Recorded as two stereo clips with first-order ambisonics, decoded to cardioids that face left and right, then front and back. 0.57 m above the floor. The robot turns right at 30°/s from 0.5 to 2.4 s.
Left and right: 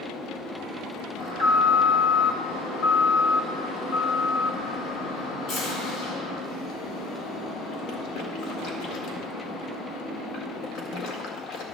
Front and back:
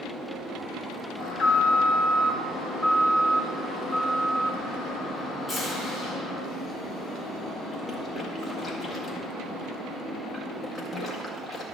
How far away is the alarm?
About 2.0 m.